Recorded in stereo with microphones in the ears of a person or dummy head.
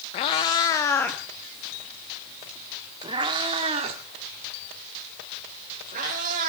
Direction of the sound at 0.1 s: 30° left (ahead or behind).